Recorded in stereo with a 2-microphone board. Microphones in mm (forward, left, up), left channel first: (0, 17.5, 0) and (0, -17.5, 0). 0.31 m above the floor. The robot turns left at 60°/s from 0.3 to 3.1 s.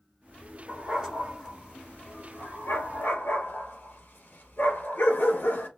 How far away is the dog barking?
About 2 m.